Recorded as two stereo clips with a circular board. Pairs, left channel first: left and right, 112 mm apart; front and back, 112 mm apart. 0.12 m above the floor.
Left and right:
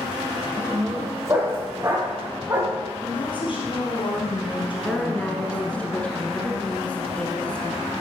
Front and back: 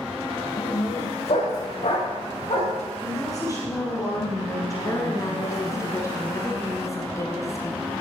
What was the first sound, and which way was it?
A dog barking, 20° right.